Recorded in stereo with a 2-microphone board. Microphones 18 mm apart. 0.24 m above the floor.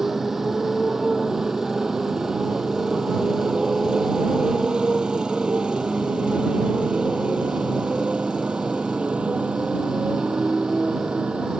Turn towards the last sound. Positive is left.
turn(degrees=-75)  # may be behind; listen again after turning